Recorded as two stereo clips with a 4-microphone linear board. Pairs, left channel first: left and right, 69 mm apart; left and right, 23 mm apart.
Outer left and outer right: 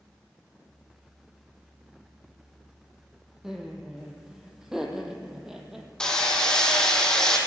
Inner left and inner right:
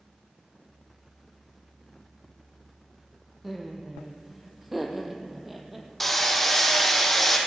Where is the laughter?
5° right (ahead or behind), 3.5 m.